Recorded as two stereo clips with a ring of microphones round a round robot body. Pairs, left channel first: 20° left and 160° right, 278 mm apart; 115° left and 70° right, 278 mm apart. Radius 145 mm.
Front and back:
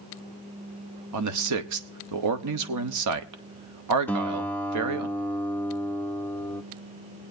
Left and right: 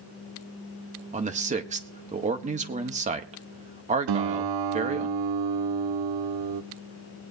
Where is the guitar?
60° right, 0.7 m.